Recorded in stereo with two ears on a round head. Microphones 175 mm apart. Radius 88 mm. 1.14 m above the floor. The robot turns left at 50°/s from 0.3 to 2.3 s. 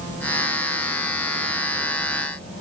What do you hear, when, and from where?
Only background noise.